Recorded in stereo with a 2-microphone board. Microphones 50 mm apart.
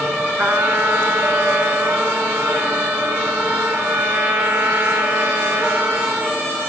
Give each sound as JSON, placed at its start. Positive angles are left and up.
{"t": 0.4, "sound": "a trumpet", "side_deg": -65, "distance_m": 1.9}